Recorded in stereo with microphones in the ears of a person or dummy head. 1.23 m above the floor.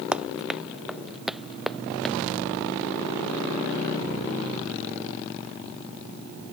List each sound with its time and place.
0.1 s running footsteps: 10° right (ahead or behind); by 2.1 s centre (ahead or behind)